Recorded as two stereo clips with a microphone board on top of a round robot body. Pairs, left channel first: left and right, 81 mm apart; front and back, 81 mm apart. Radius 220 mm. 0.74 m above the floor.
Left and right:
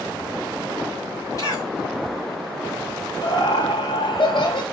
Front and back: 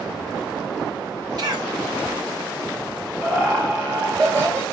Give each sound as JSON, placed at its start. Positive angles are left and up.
{"t": 1.4, "sound": "a cough", "azimuth_deg": 140, "distance_m": 5.5}
{"t": 3.2, "sound": "laughter", "azimuth_deg": 115, "distance_m": 2.5}